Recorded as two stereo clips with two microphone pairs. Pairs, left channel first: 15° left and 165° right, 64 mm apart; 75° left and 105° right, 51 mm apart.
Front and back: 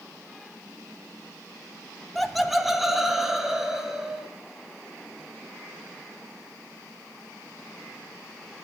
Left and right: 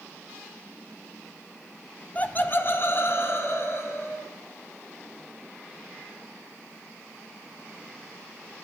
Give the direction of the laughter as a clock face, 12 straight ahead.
9 o'clock.